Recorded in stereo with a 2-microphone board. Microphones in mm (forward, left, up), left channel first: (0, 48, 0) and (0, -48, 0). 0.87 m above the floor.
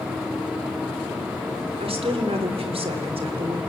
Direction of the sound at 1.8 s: 75° right (ahead or behind).